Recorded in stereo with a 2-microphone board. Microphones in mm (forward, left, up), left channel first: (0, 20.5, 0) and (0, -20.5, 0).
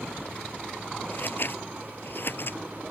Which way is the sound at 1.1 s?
55° left (ahead or behind).